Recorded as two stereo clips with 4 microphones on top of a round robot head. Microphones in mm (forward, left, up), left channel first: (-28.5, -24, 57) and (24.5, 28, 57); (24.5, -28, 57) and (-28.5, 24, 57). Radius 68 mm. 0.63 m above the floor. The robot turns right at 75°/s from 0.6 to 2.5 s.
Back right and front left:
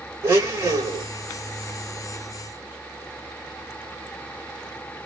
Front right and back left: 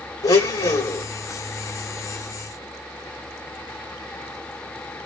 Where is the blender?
10° right, 2.5 m; by 1.1 s 25° left, 2.5 m.